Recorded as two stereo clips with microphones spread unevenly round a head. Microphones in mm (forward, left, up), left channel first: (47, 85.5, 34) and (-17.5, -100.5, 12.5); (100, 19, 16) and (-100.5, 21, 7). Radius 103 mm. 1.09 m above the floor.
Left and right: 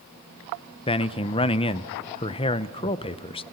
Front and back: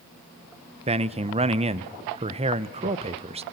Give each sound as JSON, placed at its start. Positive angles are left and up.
{"t": 0.9, "sound": "a man speaking", "azimuth_deg": 135, "distance_m": 0.7}